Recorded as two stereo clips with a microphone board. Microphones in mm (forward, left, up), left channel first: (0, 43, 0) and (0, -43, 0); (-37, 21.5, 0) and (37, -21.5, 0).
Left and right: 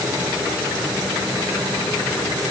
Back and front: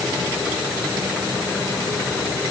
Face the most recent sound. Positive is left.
No sound to turn to.